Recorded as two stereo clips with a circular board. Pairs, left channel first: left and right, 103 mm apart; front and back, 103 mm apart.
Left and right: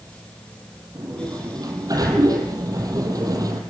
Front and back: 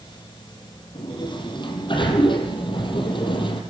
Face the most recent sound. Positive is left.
turn(degrees=-35)